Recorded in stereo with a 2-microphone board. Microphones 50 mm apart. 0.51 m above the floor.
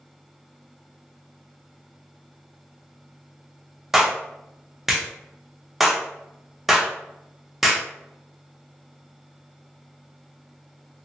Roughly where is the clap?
Centre.